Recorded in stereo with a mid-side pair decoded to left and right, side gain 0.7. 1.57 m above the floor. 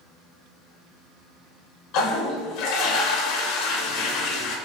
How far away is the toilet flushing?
About 0.8 m.